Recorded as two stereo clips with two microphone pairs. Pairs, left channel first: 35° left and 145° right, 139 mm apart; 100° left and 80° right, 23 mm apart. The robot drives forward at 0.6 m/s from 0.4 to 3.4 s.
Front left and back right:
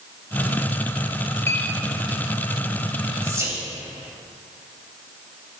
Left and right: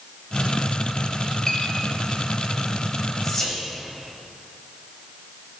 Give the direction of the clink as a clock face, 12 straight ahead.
10 o'clock.